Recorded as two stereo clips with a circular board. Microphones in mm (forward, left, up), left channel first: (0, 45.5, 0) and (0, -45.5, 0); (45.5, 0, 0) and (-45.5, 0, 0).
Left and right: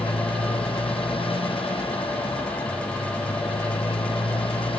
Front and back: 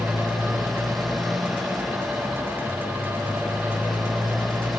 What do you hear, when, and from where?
0.0 s a motorcycle: 90° left